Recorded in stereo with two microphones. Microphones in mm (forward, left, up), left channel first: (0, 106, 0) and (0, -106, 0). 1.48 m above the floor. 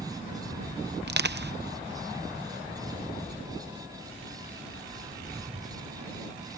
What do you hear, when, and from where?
1.1 s crushing: 50° right (ahead or behind)